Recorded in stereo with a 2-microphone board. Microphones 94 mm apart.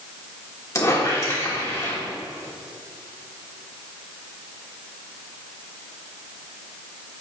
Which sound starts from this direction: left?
A squeak, at 0.8 s.